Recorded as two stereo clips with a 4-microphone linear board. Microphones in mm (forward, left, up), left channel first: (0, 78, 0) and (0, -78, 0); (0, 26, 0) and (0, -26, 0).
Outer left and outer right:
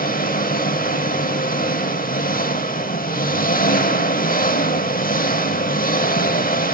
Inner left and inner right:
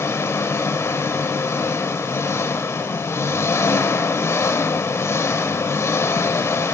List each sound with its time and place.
0.0 s an engine running: 65° left (ahead or behind), 0.8 m